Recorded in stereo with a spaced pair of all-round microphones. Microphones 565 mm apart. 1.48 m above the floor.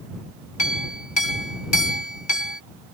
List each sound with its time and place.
0.6 s a clink: 50° left (ahead or behind)